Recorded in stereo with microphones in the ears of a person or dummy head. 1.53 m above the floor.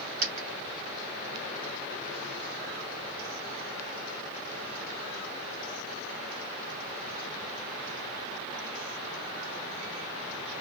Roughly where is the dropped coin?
Right.